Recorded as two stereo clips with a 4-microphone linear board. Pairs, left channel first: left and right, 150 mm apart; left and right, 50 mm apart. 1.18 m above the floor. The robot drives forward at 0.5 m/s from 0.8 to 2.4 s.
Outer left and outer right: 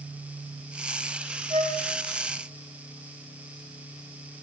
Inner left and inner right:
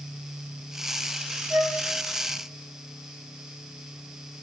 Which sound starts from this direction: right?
A flute, at 1.5 s.